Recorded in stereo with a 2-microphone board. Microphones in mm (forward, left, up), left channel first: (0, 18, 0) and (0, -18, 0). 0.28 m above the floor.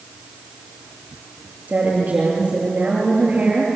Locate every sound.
1.7 s a woman speaking: 45° right (ahead or behind), 6.5 m